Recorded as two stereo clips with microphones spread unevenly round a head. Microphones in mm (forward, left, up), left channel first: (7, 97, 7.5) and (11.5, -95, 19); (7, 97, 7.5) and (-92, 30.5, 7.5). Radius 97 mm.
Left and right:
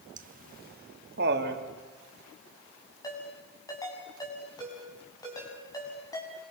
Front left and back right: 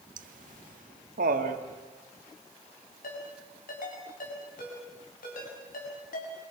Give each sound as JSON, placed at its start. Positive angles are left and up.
{"t": 0.2, "sound": "laughter", "azimuth_deg": -140, "distance_m": 1.7}
{"t": 3.0, "sound": "a ringtone", "azimuth_deg": 20, "distance_m": 7.0}